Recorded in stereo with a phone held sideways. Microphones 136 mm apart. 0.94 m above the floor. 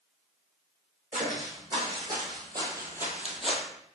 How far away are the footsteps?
About 2.5 m.